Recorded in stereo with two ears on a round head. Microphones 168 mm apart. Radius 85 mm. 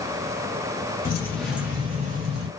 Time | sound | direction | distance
1.1 | keys jangling | 20° left (ahead or behind) | 1.1 m